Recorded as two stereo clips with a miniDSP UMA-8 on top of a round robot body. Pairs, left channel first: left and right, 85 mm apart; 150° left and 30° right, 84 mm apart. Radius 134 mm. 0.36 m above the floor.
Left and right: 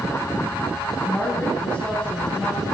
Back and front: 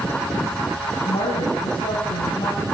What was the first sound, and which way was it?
A woman speaking, 175° left.